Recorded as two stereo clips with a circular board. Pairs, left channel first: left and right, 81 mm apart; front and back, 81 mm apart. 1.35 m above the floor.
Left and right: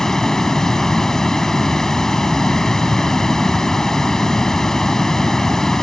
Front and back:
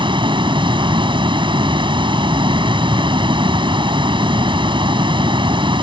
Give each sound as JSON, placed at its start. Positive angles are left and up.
{"t": 0.0, "sound": "running water", "azimuth_deg": 175}